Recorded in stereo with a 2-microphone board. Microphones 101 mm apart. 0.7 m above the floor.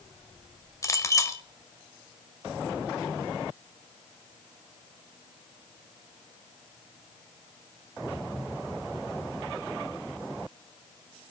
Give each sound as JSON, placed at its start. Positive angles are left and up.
{"t": 0.8, "sound": "a clink", "side_deg": 30, "distance_m": 1.7}